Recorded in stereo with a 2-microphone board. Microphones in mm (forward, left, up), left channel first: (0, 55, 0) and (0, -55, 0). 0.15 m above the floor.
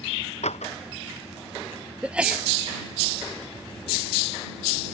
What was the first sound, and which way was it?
A door slam, 80° left.